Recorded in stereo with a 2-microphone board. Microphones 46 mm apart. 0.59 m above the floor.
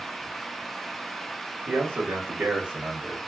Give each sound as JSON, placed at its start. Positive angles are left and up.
{"t": 1.7, "sound": "a man speaking", "side_deg": -55, "distance_m": 1.3}